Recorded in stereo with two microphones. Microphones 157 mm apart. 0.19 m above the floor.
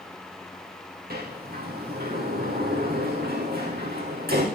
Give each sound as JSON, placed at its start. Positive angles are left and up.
{"t": 1.1, "sound": "a sliding door", "side_deg": -80, "distance_m": 4.0}